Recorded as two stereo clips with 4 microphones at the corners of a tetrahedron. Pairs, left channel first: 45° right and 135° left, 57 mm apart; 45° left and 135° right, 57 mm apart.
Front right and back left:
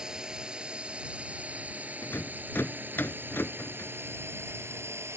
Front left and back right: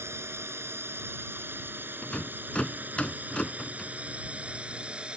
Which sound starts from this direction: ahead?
A rattle, at 2.0 s.